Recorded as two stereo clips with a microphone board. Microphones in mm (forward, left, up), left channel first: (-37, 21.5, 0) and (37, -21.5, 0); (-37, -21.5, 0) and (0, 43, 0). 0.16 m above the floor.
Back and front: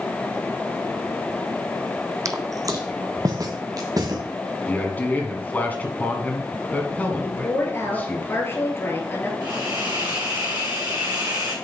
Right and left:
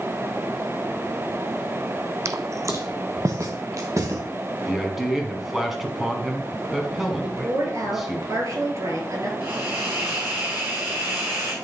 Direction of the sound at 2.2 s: 15° left.